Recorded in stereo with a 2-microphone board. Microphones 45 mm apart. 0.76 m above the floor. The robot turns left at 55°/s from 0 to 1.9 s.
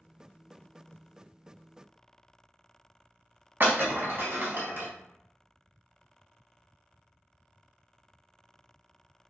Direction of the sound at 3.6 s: 50° right (ahead or behind).